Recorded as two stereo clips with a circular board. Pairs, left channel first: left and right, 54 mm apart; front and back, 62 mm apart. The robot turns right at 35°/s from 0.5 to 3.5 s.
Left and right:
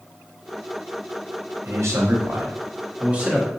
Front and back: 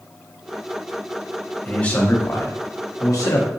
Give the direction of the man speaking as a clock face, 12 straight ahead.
3 o'clock.